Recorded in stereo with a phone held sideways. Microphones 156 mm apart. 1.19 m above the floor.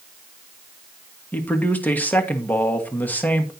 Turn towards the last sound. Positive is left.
turn(degrees=10)  # may be behind; listen again after turning